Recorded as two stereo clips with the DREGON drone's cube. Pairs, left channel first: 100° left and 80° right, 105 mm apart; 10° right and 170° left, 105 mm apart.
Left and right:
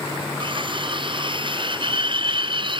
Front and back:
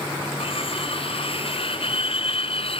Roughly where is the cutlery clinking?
Ahead right.